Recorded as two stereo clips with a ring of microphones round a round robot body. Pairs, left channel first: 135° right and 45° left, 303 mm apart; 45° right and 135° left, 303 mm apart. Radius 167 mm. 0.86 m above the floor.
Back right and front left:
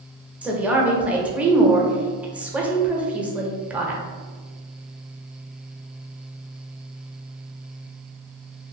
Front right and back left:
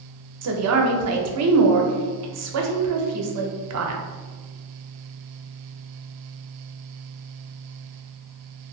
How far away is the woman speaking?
About 0.7 m.